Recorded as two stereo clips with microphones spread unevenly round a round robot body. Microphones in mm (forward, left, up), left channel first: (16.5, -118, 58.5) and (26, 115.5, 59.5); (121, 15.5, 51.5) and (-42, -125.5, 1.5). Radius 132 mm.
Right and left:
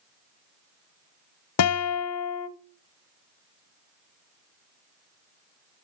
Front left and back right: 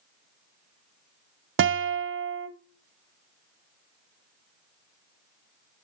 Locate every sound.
1.6 s a guitar: 110° right, 0.8 m